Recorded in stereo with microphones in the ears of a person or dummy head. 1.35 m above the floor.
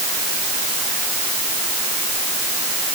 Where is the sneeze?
I don't hear a sneeze.